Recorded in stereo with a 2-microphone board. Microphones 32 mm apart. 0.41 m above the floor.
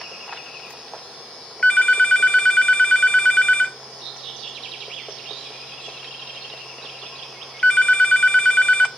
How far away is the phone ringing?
About 0.7 m.